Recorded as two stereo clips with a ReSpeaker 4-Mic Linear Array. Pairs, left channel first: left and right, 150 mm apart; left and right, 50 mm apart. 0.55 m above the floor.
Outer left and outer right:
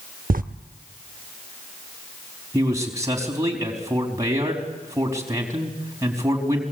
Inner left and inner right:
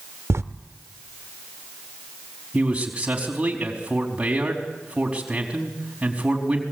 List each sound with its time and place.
0.3 s writing: 65° right (ahead or behind), 0.8 m
2.5 s a man speaking: 20° right (ahead or behind), 4.5 m